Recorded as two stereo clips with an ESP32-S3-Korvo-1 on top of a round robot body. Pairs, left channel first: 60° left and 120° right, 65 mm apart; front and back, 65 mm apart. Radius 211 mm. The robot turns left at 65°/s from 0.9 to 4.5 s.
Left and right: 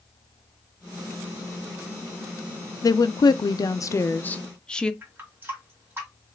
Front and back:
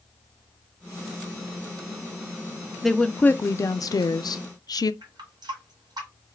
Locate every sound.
2.8 s a woman speaking: 90° left, 0.5 m; by 4.9 s 20° right, 0.5 m
5.0 s a running tap: straight behind, 1.9 m